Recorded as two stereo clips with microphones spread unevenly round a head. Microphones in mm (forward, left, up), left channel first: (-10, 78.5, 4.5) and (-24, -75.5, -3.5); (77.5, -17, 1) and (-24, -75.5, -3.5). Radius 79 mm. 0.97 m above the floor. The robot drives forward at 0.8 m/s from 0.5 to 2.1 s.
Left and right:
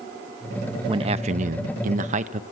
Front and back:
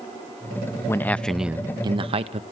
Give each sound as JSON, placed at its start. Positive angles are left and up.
{"t": 0.9, "sound": "a man speaking", "azimuth_deg": -35, "distance_m": 0.9}